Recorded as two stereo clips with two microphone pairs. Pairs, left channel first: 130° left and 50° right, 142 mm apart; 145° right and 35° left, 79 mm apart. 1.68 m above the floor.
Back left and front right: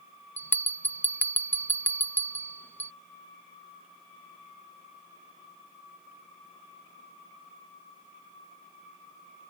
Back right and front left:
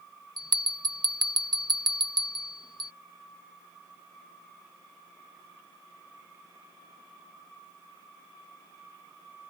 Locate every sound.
0.4 s a bell: 50° left